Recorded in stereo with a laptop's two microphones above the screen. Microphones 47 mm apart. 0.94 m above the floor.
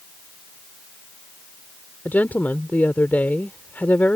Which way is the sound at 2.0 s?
35° left (ahead or behind).